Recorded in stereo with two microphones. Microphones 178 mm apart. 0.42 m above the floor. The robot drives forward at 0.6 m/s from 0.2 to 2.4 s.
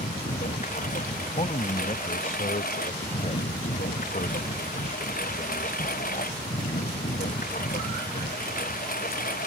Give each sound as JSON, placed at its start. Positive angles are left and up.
{"t": 0.0, "sound": "a lawn mower", "side_deg": 45}
{"t": 1.2, "sound": "a man speaking", "side_deg": 35}